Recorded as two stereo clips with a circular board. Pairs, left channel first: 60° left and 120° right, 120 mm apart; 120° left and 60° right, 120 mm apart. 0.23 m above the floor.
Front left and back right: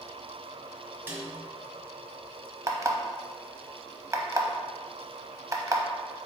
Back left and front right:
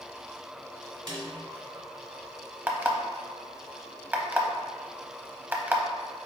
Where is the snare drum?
55° right, 1.3 m.